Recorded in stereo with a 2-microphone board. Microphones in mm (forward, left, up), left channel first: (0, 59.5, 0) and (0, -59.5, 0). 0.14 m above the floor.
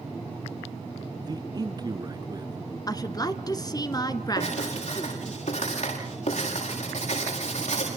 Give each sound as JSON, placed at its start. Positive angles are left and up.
{"t": 1.2, "sound": "a man speaking", "side_deg": -35, "distance_m": 1.4}
{"t": 2.9, "sound": "a woman speaking", "side_deg": 35, "distance_m": 1.5}
{"t": 4.4, "sound": "writing", "side_deg": 75, "distance_m": 9.5}